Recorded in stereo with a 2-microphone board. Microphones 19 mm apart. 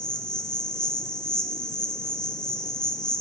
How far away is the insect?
About 3 m.